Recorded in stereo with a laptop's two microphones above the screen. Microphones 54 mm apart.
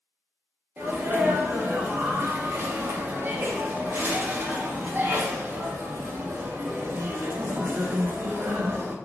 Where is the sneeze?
40° right (ahead or behind), 0.5 m.